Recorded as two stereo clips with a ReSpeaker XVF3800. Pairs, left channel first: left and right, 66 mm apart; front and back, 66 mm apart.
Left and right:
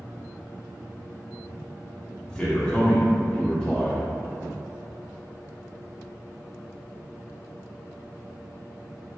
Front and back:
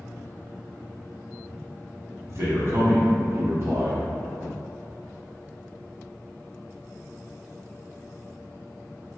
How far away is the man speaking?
About 1.6 m.